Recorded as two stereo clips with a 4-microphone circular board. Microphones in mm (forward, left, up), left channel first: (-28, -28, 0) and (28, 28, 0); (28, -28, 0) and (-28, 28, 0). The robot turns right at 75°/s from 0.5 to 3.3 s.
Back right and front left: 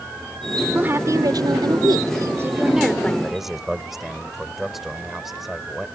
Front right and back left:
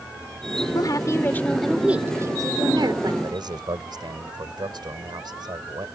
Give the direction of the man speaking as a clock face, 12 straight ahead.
8 o'clock.